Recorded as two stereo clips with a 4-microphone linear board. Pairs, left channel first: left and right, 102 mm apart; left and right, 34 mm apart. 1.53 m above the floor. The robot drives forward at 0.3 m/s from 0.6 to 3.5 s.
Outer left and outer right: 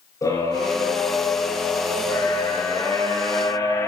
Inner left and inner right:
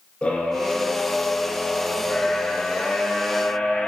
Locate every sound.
0.2 s a scream: 35° left (ahead or behind), 6 m; by 3.9 s 30° left (ahead or behind), 6.5 m